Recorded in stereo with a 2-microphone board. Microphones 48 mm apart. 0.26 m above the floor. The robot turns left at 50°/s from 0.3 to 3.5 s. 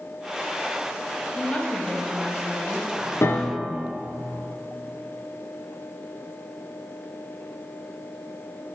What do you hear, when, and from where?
1.3 s a woman speaking: 55° left, 1.1 m; by 3.1 s 35° right, 1.1 m
3.2 s a piano: 75° left (ahead or behind), 0.6 m; by 3.8 s 90° left, 0.6 m